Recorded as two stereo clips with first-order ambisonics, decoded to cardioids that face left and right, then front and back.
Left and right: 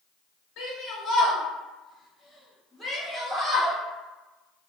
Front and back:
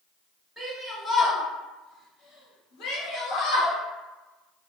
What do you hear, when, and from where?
0.6 s a shout: 95° left, 1.0 m; by 3.8 s 20° right, 1.8 m